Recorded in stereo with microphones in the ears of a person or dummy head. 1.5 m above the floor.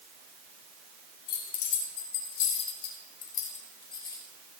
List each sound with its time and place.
1.3 s keys jangling: 80° left, 3 m; by 4.3 s 10° left (ahead or behind), 1.5 m